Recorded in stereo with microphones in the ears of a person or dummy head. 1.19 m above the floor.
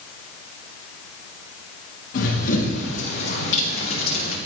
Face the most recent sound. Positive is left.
turn(degrees=50)  # may be behind; listen again after turning